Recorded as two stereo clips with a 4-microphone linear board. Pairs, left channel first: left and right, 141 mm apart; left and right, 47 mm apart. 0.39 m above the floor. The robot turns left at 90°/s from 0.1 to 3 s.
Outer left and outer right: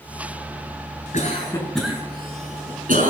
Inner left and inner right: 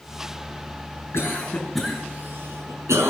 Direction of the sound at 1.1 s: 55° left (ahead or behind).